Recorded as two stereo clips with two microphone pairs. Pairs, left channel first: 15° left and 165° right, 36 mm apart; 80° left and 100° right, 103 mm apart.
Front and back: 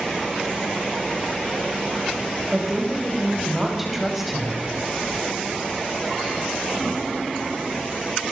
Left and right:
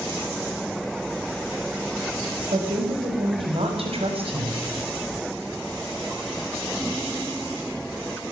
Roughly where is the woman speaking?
Right.